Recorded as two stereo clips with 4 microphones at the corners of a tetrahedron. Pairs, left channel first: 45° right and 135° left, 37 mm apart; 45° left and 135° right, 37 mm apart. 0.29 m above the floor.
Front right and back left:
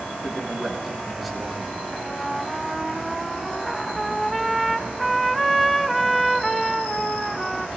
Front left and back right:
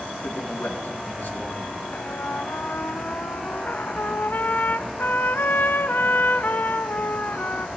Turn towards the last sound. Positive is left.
turn(degrees=45)